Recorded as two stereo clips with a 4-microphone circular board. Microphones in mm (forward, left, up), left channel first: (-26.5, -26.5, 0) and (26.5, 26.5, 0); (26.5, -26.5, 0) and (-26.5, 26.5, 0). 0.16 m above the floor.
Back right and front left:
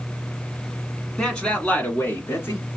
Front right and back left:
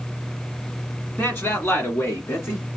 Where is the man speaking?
65° right, 1.4 m; by 2.7 s 90° right, 2 m.